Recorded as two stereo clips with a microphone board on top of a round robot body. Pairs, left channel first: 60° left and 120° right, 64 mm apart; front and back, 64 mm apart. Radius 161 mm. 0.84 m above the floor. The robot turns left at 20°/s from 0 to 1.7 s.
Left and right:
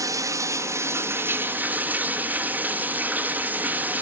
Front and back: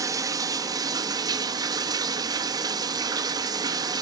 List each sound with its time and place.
0.0 s running water: 150° right, 1.3 m; by 4.0 s straight behind, 1.3 m